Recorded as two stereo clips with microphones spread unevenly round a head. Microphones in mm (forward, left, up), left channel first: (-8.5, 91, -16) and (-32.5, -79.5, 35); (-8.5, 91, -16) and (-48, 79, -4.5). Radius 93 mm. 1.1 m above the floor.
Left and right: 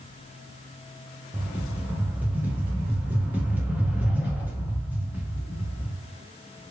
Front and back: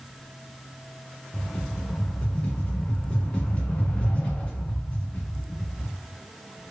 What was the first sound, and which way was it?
A rattle, 45° right.